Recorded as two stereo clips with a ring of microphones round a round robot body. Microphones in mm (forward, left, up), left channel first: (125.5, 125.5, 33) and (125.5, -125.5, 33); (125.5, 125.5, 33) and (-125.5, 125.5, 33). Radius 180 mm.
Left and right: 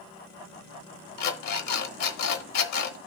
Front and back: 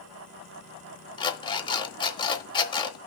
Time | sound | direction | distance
1.2 | an alarm clock | 75° left | 1.1 m